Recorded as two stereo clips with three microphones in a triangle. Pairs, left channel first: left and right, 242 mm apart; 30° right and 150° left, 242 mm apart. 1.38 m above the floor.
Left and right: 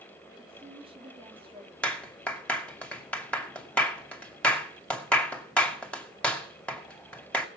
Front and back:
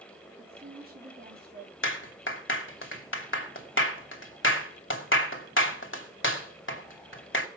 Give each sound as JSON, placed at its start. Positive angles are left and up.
{"t": 0.4, "sound": "a woman speaking", "azimuth_deg": -160, "distance_m": 4.0}
{"t": 1.8, "sound": "a clap", "azimuth_deg": 5, "distance_m": 2.5}